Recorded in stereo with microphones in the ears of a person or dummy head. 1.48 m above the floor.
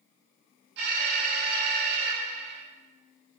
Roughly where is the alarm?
Right.